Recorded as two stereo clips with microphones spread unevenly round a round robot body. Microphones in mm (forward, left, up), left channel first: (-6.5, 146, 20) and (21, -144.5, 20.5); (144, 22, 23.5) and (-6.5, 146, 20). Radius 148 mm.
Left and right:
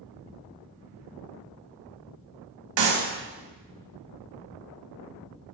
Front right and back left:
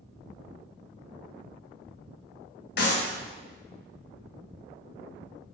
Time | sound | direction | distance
2.8 | a clap | 75° right | 1.9 m